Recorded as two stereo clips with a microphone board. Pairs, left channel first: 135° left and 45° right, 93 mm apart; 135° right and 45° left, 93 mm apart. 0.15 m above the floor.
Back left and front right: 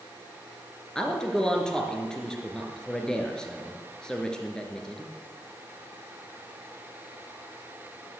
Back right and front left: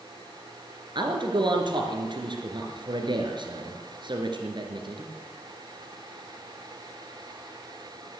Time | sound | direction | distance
0.9 | a man speaking | 55° left | 2.5 m